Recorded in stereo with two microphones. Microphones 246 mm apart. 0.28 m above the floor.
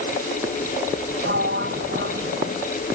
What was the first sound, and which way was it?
A sliding door, 50° right (ahead or behind).